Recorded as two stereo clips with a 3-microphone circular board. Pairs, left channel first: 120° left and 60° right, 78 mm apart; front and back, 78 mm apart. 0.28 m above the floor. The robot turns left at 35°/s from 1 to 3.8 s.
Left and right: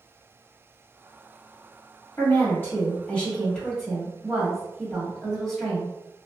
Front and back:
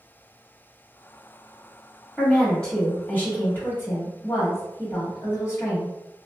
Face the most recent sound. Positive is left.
turn(degrees=30)